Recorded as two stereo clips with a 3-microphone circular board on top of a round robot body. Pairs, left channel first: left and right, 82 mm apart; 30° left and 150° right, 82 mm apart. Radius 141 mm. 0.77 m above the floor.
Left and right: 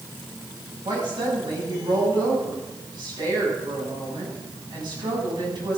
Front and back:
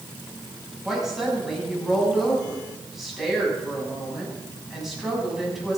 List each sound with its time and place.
0.8 s a woman speaking: 60° right, 6 m